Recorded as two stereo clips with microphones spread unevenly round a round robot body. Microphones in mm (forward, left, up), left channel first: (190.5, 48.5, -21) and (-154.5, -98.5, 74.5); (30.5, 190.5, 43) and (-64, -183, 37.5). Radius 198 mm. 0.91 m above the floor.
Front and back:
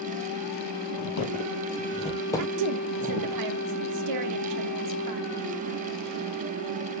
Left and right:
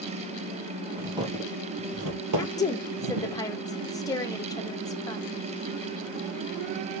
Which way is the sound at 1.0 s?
20° right.